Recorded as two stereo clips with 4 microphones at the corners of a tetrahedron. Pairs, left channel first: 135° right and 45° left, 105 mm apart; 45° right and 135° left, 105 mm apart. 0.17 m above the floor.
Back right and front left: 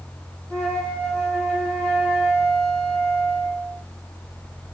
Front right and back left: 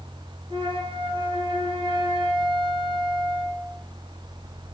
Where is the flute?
145° left, 2.5 m.